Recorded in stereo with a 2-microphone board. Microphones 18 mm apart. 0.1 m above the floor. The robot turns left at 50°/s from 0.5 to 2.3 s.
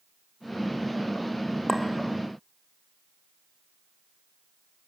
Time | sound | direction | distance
1.7 | a clink | 15° left (ahead or behind) | 2.5 m